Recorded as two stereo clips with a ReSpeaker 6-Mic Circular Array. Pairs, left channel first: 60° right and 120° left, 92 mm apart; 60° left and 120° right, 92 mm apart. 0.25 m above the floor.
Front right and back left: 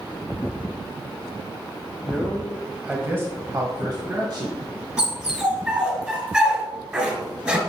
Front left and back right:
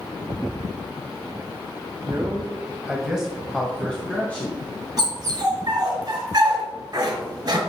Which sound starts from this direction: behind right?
A man speaking, at 2.0 s.